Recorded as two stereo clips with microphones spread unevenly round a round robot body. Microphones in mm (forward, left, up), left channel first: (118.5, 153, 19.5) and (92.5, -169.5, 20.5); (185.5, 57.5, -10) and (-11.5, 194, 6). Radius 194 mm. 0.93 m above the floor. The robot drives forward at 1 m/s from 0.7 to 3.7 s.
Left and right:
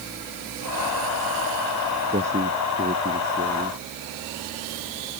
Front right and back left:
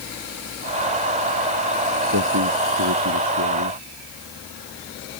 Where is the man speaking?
170° right.